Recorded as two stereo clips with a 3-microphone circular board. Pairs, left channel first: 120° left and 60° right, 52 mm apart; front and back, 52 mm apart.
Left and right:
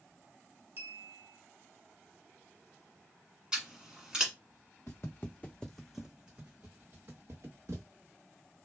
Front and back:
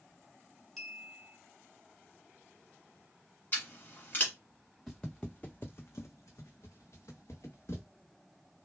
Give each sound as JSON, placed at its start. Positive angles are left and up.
{"t": 0.8, "sound": "a clink", "azimuth_deg": -85, "distance_m": 1.0}
{"t": 3.5, "sound": "scissors", "azimuth_deg": 10, "distance_m": 1.1}
{"t": 4.9, "sound": "footsteps", "azimuth_deg": 85, "distance_m": 0.7}